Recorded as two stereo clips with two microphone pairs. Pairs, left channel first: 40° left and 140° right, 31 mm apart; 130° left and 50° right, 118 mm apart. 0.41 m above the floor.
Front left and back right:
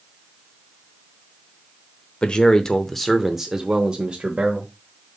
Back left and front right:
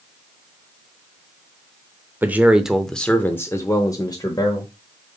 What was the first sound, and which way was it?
A man speaking, 10° left.